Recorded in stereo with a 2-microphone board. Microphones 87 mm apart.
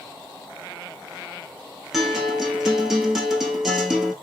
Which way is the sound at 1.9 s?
5° right (ahead or behind).